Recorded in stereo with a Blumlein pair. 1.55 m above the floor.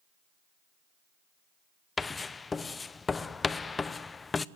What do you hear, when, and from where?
2.0 s writing: 15° left, 0.6 m